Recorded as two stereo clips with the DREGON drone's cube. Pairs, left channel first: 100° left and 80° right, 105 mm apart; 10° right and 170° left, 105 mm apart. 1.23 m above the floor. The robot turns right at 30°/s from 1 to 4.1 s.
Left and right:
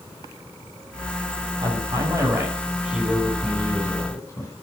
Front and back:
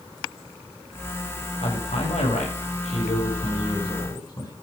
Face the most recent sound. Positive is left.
turn(degrees=40)